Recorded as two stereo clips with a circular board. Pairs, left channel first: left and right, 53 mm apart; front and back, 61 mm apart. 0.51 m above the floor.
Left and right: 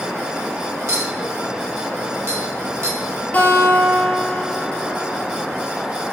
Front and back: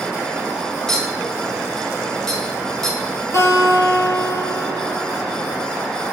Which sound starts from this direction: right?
A clink, at 0.9 s.